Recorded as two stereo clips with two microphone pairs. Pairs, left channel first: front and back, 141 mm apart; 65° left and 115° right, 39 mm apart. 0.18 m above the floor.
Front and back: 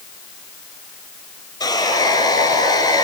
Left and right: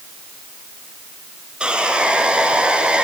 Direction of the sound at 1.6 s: 55° right.